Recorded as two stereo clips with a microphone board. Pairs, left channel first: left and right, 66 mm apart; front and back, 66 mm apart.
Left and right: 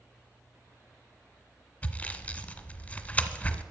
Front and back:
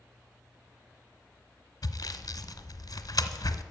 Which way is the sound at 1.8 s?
20° left.